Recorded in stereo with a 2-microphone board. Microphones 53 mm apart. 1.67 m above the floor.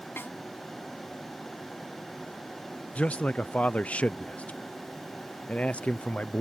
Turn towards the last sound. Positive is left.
turn(degrees=25)  # may be behind; listen again after turning